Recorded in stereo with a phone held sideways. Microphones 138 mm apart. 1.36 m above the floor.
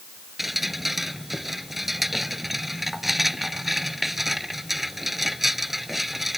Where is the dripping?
Centre (ahead or behind).